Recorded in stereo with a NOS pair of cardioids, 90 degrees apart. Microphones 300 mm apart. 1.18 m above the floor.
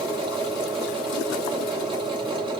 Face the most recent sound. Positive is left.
turn(degrees=-15)